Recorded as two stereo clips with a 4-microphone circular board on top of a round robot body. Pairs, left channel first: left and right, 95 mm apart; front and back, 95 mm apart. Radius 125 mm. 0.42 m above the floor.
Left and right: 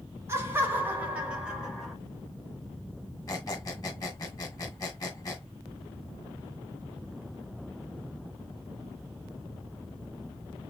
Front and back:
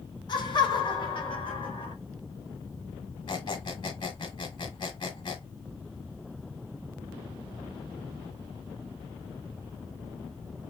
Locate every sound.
0.3 s laughter: 30° right, 2.5 m; by 1.9 s straight ahead, 2.5 m
3.3 s a squeak: 35° left, 1.8 m